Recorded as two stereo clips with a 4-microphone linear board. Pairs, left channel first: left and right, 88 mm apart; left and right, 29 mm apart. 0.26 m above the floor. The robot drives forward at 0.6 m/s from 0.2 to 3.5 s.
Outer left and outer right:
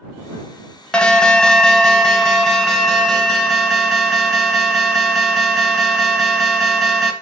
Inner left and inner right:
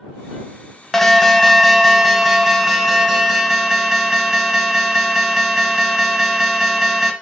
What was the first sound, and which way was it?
An alarm, 10° left (ahead or behind).